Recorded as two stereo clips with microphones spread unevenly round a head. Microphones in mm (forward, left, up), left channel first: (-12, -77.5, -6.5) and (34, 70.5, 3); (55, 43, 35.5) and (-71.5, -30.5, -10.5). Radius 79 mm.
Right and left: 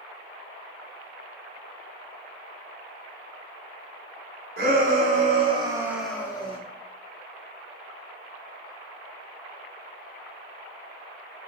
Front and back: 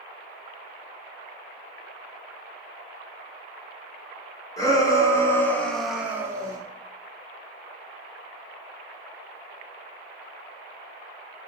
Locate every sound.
4.6 s a shout: 105° left, 1.1 m; by 6.6 s 135° right, 0.6 m